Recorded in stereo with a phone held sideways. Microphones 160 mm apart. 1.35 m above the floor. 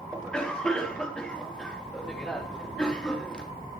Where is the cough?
5° left (ahead or behind), 3.5 m.